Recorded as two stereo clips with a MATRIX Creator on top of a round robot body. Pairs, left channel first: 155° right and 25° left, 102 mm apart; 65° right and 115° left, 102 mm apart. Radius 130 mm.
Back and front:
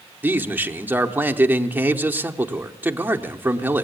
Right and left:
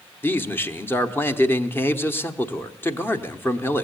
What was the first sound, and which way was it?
A man speaking, 30° right.